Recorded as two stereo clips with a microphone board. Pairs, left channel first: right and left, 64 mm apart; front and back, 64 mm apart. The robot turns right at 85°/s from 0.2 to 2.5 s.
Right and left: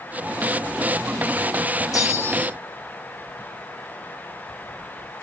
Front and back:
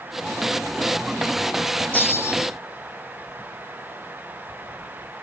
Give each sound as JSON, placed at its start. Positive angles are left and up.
{"t": 1.9, "sound": "a bell", "azimuth_deg": -65, "distance_m": 1.6}